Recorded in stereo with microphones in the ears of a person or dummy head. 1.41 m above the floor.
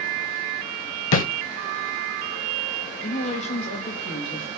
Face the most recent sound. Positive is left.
turn(degrees=35)  # may be behind; listen again after turning